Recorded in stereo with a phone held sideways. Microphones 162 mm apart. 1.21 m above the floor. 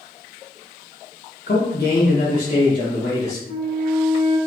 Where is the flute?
45° left (ahead or behind), 0.6 m.